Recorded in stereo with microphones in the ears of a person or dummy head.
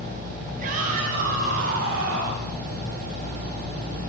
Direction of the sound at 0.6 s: 45° right (ahead or behind).